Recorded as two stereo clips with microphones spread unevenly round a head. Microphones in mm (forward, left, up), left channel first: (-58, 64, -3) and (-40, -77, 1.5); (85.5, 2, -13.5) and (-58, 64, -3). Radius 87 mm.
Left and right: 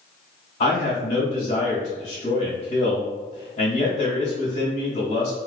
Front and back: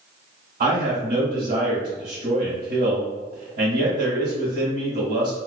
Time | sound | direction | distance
0.6 | a man speaking | 125° left | 1.1 m